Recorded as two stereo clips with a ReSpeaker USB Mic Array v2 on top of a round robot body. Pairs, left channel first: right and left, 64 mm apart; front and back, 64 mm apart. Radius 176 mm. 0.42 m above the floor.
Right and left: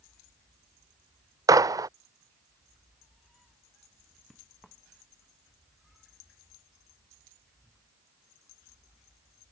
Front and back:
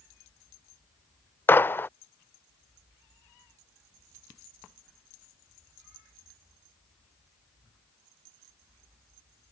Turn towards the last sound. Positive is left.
turn(degrees=60)